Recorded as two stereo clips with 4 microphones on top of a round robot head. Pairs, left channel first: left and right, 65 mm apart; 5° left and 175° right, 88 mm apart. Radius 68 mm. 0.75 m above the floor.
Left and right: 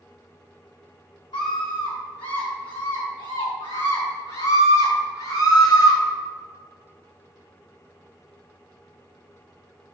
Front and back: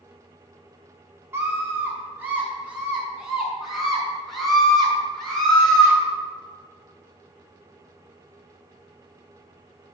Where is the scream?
120° left, 6 m; by 6.0 s 85° left, 8.5 m.